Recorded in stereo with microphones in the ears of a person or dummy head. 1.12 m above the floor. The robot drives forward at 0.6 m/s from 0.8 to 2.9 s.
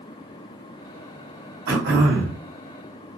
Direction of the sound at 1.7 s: 75° right (ahead or behind).